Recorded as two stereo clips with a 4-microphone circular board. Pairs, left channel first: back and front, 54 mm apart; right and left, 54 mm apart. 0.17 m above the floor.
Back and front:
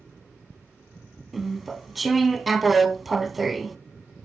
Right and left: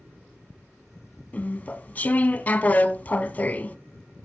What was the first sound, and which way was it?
Chewing, 90° right.